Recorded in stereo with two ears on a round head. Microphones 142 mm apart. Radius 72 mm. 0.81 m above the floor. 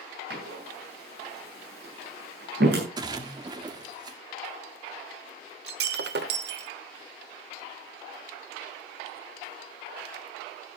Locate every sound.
0.3 s a door slam: 70° right (ahead or behind), 8 m
3.0 s a splash: 25° right (ahead or behind), 1.7 m
5.7 s breaking glass: 65° right (ahead or behind), 1.3 m